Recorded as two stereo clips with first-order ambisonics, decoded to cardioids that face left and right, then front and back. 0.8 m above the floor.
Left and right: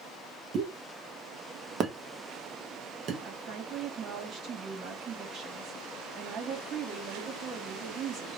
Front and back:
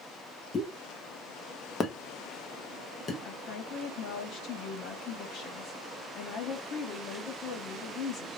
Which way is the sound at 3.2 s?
40° right.